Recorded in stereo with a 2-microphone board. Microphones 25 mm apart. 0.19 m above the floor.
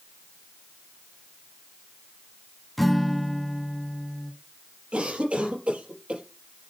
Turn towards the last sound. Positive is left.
turn(degrees=-55)  # may be behind; listen again after turning